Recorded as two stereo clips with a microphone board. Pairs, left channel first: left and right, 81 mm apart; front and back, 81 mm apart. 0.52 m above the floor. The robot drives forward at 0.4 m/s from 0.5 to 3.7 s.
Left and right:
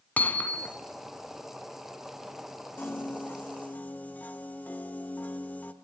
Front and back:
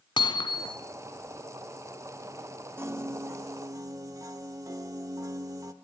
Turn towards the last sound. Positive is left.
turn(degrees=155)